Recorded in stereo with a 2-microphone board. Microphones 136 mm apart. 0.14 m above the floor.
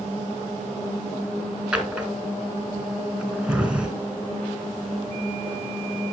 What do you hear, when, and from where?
1.7 s a drawer: 5° right (ahead or behind), 0.9 m